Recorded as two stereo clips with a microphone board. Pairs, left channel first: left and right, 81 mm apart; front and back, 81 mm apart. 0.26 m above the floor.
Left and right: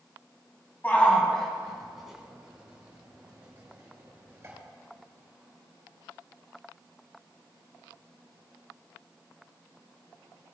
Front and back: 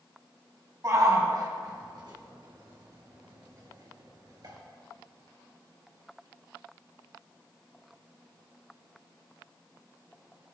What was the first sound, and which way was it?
A shout, 150° left.